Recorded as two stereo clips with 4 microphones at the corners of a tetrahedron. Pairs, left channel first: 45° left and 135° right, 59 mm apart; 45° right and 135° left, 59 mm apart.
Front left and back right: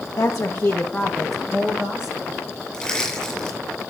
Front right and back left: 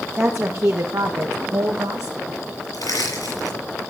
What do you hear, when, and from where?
0.2 s a woman speaking: 75° left, 1.2 m; by 2.4 s 160° left, 2 m
2.7 s crushing: 40° right, 7 m